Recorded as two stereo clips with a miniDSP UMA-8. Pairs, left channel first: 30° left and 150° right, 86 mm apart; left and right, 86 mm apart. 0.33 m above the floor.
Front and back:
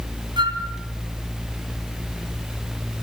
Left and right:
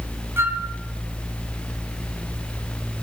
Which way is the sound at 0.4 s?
150° right.